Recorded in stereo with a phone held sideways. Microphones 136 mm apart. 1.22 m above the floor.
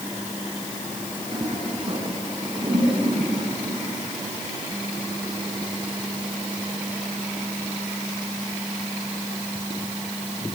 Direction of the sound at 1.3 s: 40° right (ahead or behind).